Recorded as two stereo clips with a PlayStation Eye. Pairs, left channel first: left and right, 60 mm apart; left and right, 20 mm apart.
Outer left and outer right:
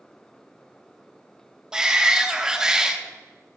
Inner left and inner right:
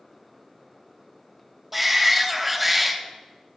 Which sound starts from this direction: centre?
A shout, at 1.7 s.